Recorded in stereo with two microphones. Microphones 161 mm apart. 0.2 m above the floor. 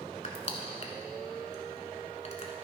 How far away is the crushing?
About 1.3 m.